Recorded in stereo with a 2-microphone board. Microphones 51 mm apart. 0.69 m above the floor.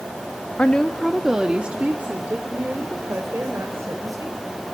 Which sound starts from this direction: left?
A woman speaking, at 0.6 s.